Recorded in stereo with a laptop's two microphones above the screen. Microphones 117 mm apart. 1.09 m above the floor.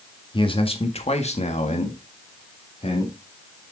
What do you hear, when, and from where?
0.3 s a man speaking: 45° left (ahead or behind), 1.9 m; by 3.1 s 60° left (ahead or behind), 2.5 m